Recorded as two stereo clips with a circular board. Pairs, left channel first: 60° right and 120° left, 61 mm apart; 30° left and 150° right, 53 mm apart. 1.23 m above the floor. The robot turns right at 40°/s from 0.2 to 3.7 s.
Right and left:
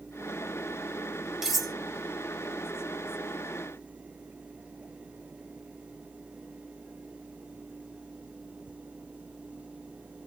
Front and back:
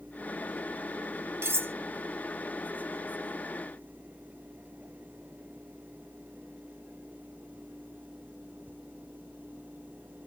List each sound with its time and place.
1.4 s cutlery clinking: 160° right, 0.6 m; by 1.7 s 145° right, 0.6 m